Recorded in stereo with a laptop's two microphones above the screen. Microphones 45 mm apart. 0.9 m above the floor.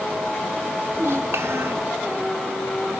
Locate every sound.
0.9 s a child speaking: 75° right (ahead or behind), 1.4 m